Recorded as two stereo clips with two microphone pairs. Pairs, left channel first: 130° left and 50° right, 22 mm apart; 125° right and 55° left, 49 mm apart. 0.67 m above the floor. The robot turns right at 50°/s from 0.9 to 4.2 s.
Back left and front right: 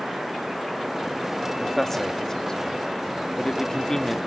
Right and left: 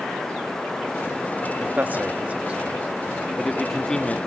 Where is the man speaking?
55° left, 1.2 m; by 4.2 s straight behind, 1.2 m.